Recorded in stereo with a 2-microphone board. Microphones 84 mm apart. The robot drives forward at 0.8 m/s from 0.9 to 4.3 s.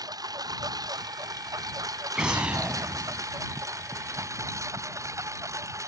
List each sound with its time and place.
0.0 s a lawn mower: 45° right (ahead or behind); by 5.9 s 35° right (ahead or behind)
2.1 s an explosion: 10° right (ahead or behind)